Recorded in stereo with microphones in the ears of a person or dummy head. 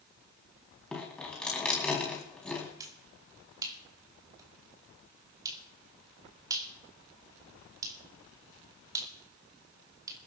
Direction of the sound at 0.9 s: 10° left (ahead or behind).